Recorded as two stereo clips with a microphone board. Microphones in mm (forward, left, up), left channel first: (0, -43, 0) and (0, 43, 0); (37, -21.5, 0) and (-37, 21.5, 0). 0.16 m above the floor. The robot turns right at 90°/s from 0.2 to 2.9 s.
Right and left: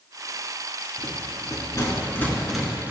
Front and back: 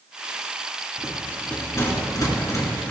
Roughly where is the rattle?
Behind right.